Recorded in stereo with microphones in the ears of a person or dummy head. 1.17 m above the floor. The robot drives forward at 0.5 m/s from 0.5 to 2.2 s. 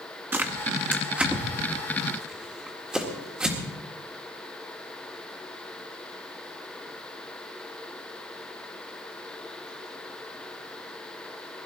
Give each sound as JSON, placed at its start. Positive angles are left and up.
{"t": 0.3, "sound": "tearing paper", "side_deg": -10, "distance_m": 1.1}